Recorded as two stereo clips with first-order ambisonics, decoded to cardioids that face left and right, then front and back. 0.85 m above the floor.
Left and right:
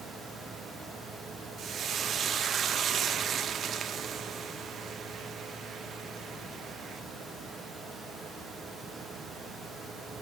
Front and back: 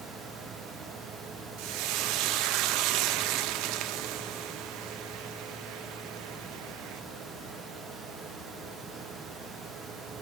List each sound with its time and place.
1.6 s frying: 155° right, 0.6 m